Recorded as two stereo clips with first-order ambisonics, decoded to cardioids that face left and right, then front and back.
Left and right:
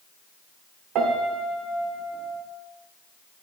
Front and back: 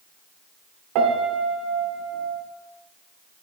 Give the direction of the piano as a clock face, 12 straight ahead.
5 o'clock.